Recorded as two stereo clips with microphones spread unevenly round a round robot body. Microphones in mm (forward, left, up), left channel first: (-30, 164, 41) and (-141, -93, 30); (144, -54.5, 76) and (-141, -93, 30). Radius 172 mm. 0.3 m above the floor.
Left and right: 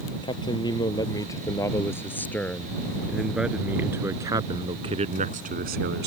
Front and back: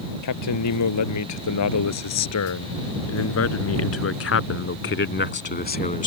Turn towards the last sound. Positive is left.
turn(degrees=-60)